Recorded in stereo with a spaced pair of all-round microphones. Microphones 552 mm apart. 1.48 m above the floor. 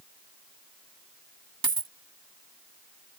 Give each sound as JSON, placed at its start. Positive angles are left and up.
{"t": 1.6, "sound": "a dropped coin", "side_deg": -40}